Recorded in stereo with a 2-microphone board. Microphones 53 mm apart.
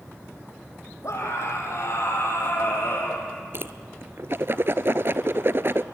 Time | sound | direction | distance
1.0 | a scream | 70° left (ahead or behind) | 6.5 m
3.5 | a whoosh | 50° right (ahead or behind) | 0.7 m